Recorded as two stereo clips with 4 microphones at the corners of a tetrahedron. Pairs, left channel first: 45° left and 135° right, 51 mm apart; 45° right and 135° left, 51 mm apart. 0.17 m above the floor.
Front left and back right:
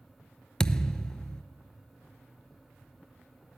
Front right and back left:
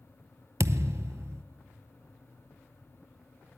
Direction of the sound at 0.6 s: 120° left.